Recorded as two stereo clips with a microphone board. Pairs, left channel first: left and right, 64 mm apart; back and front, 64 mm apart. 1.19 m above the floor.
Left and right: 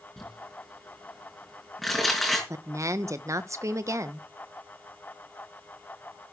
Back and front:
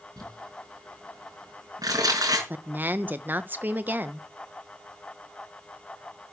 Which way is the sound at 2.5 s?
60° right.